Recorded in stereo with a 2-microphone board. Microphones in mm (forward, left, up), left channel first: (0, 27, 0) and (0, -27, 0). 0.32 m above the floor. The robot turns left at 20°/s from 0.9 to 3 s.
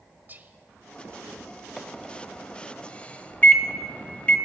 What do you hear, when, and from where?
0.3 s whispering: 35° right (ahead or behind), 1.3 m
1.8 s a microwave: 5° left (ahead or behind), 1.4 m; by 4.4 s 25° left (ahead or behind), 1.4 m